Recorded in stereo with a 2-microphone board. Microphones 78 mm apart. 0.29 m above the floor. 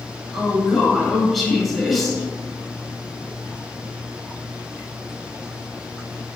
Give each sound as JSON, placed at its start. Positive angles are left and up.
{"t": 0.3, "sound": "a woman speaking", "side_deg": 0, "distance_m": 1.1}